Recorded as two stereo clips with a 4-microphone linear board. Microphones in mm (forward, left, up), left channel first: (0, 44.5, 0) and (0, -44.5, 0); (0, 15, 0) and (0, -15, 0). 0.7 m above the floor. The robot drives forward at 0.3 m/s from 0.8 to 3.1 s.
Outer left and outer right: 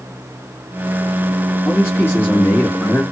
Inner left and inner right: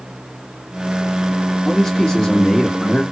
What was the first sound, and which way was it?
A man speaking, 25° left (ahead or behind).